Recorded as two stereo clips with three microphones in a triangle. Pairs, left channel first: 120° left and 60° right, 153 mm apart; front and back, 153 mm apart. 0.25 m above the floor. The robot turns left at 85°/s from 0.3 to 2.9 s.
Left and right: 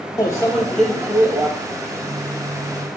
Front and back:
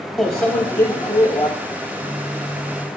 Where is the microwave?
85° left, 0.8 m; by 1.5 s 20° right, 0.8 m.